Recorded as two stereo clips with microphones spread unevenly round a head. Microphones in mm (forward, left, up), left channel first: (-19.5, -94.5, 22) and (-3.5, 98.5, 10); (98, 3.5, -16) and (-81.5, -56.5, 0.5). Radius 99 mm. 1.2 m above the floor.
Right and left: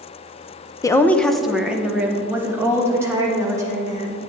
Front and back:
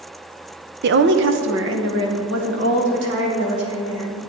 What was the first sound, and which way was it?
A woman speaking, 165° right.